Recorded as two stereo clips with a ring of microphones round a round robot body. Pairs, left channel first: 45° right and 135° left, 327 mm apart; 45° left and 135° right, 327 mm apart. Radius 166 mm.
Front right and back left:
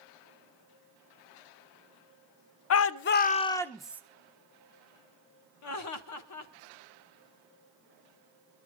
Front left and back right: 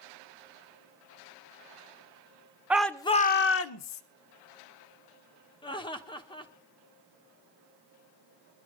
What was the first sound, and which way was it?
A shout, 50° right.